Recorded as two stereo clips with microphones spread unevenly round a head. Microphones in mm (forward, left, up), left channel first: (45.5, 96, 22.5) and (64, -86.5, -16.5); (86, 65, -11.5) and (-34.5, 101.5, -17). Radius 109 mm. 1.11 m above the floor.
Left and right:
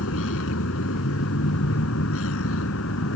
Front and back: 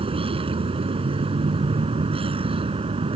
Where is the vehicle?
120° left.